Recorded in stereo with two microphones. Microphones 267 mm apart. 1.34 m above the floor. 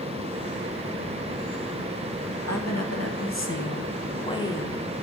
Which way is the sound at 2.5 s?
75° left (ahead or behind).